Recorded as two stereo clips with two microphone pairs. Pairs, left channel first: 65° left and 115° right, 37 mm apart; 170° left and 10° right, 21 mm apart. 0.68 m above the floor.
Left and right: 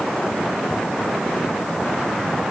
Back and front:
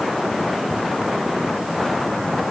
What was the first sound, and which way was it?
Only background noise.